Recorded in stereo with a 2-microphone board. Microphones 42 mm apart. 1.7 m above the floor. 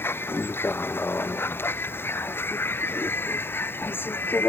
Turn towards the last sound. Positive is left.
turn(degrees=60)  # may be behind; listen again after turning